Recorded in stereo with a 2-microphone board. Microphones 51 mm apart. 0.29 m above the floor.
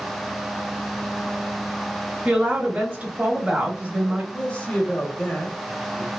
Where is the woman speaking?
25° right (ahead or behind), 1.0 m.